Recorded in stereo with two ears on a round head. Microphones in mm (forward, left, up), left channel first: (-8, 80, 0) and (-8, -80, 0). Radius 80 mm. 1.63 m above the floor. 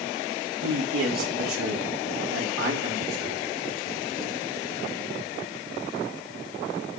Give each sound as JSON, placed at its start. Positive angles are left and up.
{"t": 0.6, "sound": "a man speaking", "side_deg": -70, "distance_m": 4.5}